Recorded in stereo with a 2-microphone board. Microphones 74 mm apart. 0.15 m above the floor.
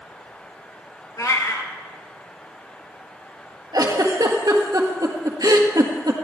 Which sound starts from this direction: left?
A cat meowing, at 1.2 s.